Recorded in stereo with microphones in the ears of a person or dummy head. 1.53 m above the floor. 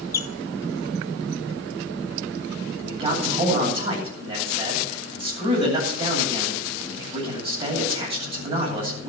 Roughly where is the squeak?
Centre.